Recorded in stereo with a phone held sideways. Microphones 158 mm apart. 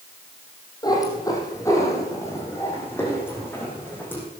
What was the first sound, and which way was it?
A cat meowing, 25° left (ahead or behind).